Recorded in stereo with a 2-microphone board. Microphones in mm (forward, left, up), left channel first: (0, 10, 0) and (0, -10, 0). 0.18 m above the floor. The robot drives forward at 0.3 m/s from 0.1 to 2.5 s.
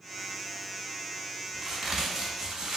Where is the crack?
25° right (ahead or behind), 1.0 m; by 2.8 s 30° right (ahead or behind), 0.8 m.